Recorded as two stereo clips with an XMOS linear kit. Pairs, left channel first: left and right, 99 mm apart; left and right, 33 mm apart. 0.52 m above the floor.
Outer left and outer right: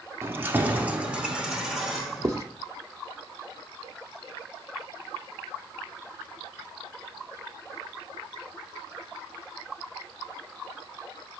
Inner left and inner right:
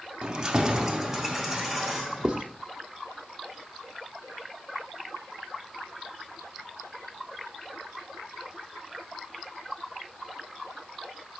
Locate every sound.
0.2 s keys jangling: 25° right (ahead or behind), 0.6 m; by 2.4 s 5° right (ahead or behind), 1.5 m
2.2 s writing: 30° right (ahead or behind), 0.7 m